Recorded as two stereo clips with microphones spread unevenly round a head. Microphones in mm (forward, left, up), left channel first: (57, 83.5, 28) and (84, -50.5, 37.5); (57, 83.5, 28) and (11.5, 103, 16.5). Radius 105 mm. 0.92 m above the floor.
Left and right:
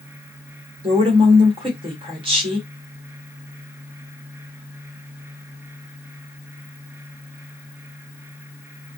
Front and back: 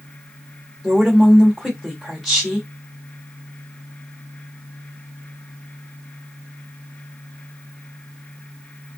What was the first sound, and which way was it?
A woman speaking, 115° right.